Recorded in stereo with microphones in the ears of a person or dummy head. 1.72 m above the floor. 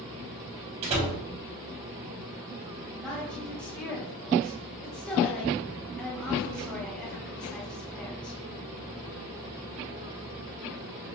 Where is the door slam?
40° right (ahead or behind), 3 m.